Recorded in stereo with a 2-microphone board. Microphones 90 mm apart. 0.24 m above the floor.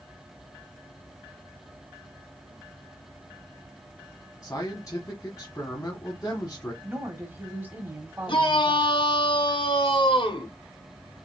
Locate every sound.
4.4 s a man speaking: 35° left (ahead or behind), 1.6 m
6.8 s a woman speaking: 20° right (ahead or behind), 1.6 m
8.3 s a shout: 60° left (ahead or behind), 3 m